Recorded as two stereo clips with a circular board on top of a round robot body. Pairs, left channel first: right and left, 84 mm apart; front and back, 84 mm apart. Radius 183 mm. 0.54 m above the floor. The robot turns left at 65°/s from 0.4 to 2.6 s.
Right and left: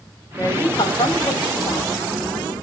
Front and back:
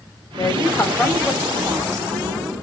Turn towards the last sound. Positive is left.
turn(degrees=-175)